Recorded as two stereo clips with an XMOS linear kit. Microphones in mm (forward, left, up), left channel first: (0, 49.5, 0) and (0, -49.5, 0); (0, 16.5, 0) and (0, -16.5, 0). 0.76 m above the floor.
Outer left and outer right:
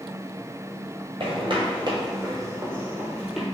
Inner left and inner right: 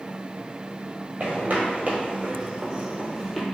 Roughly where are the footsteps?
Right.